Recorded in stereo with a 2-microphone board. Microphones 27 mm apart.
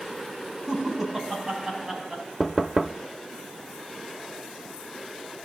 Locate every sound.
0.7 s laughter: 20° right (ahead or behind), 4.5 m; by 2.2 s 10° right (ahead or behind), 5 m
2.4 s knocking: 10° right (ahead or behind), 0.7 m